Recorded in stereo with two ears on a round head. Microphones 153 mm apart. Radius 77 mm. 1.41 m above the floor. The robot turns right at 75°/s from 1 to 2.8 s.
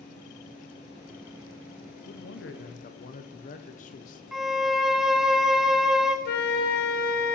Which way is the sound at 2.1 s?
75° left.